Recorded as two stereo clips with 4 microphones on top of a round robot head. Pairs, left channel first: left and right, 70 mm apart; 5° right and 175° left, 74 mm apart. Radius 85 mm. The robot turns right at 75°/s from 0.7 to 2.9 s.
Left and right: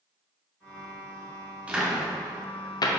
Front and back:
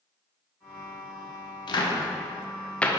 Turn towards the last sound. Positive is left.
turn(degrees=75)